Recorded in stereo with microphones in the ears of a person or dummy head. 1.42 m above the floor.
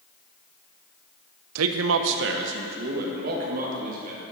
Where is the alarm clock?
I don't hear an alarm clock.